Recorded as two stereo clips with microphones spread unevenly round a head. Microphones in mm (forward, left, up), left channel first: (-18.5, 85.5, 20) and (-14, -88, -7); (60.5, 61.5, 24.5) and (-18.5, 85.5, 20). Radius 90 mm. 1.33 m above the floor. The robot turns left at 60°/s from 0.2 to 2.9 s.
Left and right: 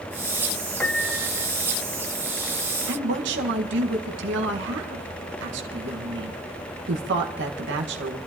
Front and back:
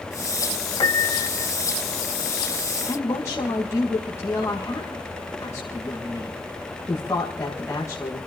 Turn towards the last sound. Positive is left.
turn(degrees=-90)